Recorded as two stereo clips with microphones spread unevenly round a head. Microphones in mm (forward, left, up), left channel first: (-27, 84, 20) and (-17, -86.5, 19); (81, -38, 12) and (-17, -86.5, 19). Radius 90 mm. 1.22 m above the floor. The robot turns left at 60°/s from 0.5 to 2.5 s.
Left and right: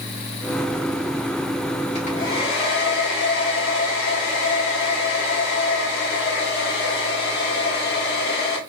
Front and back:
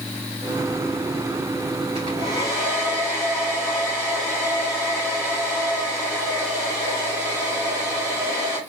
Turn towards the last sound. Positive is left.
turn(degrees=115)